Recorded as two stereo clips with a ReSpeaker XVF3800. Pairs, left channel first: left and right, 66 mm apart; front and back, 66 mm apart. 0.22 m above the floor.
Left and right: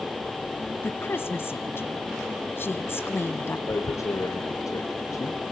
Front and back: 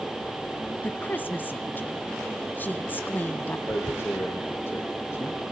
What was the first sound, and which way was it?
A woman speaking, 50° left.